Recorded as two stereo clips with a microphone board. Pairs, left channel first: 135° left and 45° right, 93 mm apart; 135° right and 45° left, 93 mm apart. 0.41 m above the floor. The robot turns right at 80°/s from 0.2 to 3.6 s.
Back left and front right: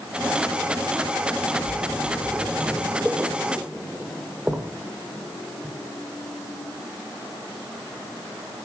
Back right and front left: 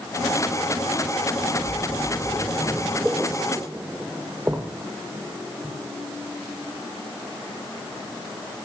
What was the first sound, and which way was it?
A splash, 165° right.